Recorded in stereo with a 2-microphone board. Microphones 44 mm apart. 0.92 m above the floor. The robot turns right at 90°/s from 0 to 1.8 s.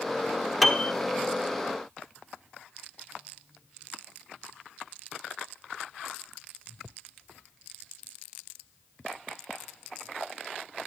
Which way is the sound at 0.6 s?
5° left (ahead or behind).